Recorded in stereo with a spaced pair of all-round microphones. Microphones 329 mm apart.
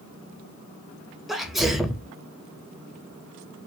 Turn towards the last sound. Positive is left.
turn(degrees=0)  # may be behind; listen again after turning